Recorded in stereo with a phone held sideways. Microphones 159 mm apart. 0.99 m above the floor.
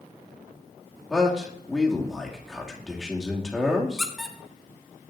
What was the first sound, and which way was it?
A man speaking, 5° left (ahead or behind).